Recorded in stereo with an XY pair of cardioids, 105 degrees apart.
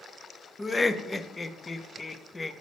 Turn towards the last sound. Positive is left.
turn(degrees=20)